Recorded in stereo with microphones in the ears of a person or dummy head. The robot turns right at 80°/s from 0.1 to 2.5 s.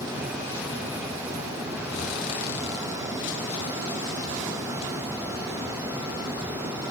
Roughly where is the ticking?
No ticking in this recording.